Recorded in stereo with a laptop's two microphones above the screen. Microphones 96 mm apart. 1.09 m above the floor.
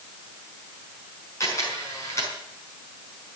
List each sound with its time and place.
1.4 s a camera shutter: 30° left (ahead or behind), 5.5 m